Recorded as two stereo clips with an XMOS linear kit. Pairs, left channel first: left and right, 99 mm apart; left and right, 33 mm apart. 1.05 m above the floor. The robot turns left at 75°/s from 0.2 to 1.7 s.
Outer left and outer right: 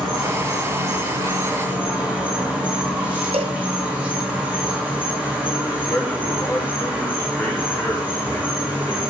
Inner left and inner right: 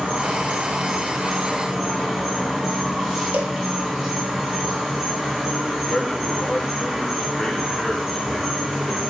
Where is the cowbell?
70° right (ahead or behind), 0.8 m.